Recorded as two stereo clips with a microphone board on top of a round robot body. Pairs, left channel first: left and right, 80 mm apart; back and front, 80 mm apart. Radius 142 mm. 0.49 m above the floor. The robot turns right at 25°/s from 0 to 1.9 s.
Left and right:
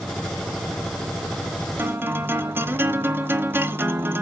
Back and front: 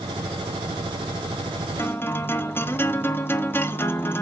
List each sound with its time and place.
1.8 s a guitar: 140° right, 1.6 m; by 4.2 s 135° right, 1.6 m